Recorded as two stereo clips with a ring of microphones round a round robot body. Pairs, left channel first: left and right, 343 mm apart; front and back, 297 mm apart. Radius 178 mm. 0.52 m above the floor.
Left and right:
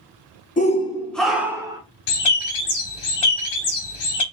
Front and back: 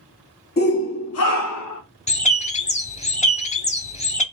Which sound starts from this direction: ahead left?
A shout, at 0.6 s.